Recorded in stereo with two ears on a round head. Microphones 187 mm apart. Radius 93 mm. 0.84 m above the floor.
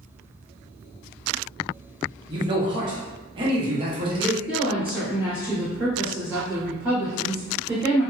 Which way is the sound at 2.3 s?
25° right (ahead or behind).